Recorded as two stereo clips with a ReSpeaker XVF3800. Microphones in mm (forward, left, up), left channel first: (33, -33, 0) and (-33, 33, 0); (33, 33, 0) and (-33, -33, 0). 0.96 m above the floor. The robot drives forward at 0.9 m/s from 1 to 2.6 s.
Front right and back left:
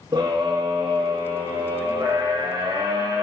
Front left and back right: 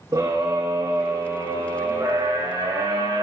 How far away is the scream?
About 2.5 m.